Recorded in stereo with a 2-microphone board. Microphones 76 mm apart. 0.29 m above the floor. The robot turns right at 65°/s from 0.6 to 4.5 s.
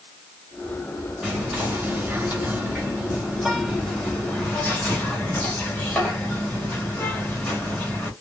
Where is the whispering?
5° right (ahead or behind), 1.5 m; by 8.1 s 15° left (ahead or behind), 1.5 m.